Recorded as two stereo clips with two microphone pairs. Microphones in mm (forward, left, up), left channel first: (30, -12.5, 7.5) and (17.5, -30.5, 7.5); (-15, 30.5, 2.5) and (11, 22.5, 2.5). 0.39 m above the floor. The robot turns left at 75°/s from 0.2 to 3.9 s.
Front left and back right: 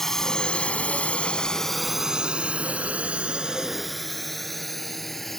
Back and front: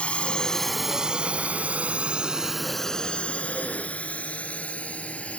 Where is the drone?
130° left; by 5.4 s 135° left.